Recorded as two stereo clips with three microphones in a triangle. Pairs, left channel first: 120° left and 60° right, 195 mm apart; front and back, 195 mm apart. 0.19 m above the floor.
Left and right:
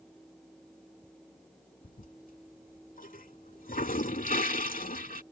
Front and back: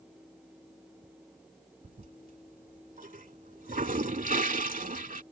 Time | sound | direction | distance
1.8 | a toilet flushing | 150° left | ?